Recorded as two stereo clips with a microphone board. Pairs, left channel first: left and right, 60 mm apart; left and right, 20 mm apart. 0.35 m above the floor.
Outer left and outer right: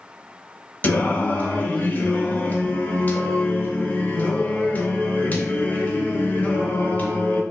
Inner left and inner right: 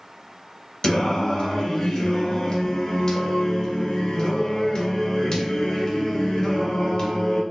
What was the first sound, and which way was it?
Singing, 30° left (ahead or behind).